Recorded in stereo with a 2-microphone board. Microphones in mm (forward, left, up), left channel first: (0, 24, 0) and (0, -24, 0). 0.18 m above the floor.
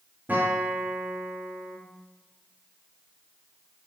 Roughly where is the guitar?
Right.